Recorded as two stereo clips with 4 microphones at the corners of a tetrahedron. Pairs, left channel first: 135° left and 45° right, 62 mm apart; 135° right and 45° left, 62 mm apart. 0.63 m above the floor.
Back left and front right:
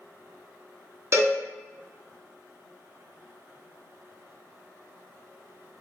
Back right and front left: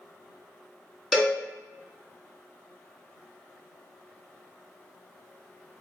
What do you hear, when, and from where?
1.1 s a cowbell: 40° right, 0.7 m